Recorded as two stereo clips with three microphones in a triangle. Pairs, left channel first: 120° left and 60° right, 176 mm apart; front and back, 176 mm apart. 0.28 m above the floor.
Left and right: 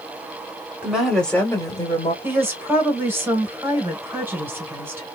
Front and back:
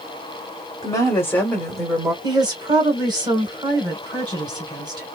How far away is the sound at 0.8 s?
About 1.3 m.